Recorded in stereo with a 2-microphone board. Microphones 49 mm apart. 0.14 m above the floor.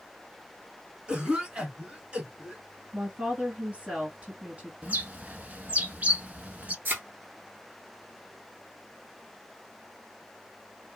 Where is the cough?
20° right (ahead or behind), 1.4 m.